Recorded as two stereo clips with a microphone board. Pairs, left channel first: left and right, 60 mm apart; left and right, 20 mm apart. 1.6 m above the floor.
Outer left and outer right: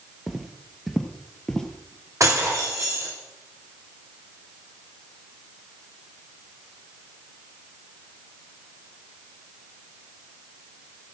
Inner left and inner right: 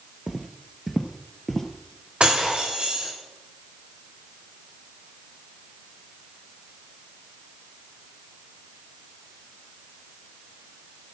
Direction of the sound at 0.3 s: 5° right (ahead or behind).